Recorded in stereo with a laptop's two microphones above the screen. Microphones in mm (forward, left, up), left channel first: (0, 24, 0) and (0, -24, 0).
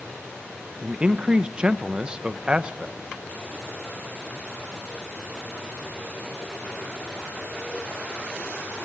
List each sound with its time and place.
0.8 s a man speaking: 20° right (ahead or behind), 0.7 m